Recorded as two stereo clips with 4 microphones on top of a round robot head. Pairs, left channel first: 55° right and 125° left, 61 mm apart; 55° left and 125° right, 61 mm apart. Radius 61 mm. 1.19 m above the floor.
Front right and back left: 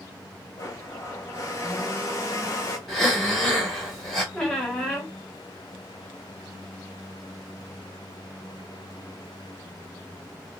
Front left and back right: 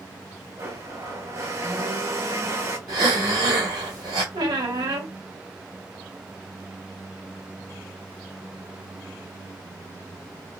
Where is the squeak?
135° right, 0.9 m.